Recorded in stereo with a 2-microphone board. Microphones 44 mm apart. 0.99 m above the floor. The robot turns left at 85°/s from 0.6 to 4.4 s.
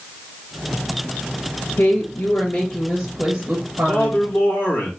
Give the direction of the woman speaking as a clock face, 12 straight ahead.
9 o'clock.